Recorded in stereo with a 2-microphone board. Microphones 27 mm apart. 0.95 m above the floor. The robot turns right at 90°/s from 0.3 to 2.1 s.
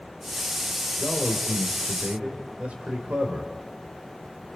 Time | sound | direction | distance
1.0 | a man speaking | 155° right | 3 m